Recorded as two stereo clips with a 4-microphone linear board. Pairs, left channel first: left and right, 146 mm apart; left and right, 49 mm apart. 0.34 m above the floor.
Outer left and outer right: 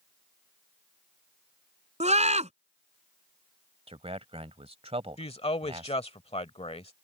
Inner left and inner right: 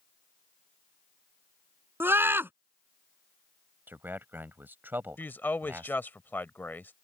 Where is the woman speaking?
45° left (ahead or behind).